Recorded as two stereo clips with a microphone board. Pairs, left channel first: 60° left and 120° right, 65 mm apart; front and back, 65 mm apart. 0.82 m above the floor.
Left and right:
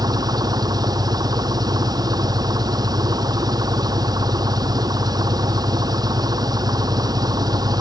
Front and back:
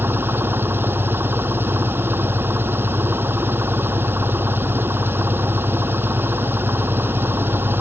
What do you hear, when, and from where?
0.0 s an engine running: 125° right